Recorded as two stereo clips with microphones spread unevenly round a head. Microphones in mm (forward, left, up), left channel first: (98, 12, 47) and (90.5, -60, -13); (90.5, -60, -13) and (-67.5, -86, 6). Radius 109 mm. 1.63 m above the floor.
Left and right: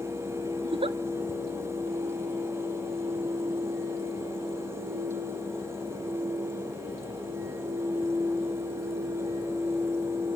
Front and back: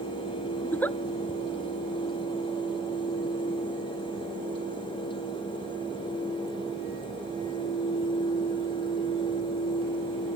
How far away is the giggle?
About 0.5 m.